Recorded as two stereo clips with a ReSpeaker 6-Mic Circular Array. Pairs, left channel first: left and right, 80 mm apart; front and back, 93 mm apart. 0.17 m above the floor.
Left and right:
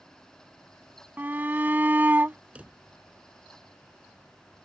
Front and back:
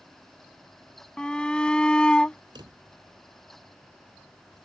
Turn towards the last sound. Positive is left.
turn(degrees=-160)